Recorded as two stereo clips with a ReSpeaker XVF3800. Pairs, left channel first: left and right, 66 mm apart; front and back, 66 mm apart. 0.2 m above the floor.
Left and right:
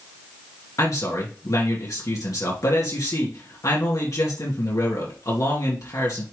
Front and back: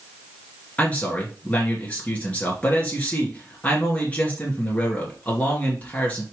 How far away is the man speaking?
About 3 m.